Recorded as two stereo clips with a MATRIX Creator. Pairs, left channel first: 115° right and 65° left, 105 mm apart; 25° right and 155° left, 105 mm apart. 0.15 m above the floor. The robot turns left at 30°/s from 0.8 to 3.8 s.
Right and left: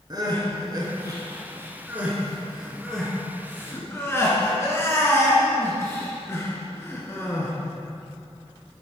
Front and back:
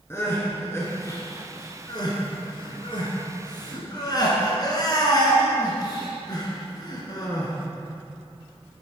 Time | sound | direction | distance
0.1 | crying | 35° left | 1.8 m